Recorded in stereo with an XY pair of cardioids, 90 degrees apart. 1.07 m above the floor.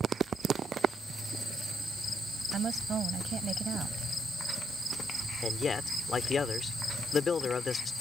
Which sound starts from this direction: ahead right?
A woman speaking, at 2.5 s.